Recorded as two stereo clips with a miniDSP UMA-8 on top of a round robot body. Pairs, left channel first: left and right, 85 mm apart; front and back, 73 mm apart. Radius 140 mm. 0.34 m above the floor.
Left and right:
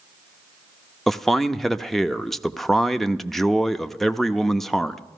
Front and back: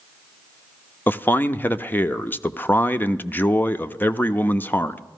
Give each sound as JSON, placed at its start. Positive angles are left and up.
{"t": 1.1, "sound": "a man speaking", "azimuth_deg": 5, "distance_m": 0.8}